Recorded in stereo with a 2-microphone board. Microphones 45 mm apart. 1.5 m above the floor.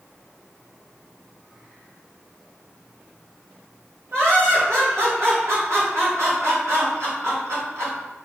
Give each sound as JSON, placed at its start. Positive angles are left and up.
{"t": 4.1, "sound": "laughter", "side_deg": -85, "distance_m": 1.7}